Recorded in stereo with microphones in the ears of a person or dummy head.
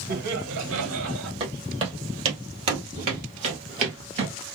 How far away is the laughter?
About 1.3 m.